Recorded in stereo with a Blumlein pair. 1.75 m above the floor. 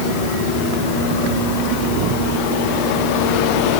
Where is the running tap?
I don't hear a running tap.